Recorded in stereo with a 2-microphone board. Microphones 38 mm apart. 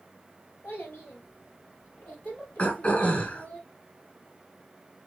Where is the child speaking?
65° left (ahead or behind), 3 m; by 3.6 s 50° left (ahead or behind), 4 m.